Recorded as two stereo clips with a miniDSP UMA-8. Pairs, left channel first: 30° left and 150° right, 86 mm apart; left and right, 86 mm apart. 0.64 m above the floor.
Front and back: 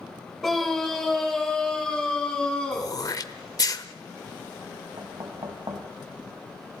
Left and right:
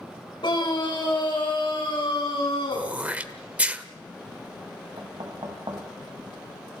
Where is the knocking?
115° right, 3 m.